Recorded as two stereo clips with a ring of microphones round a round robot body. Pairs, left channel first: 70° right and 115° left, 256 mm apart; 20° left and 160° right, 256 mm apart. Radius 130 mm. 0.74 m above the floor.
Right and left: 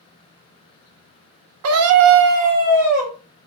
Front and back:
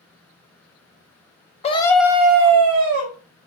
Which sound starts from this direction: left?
A scream, at 1.6 s.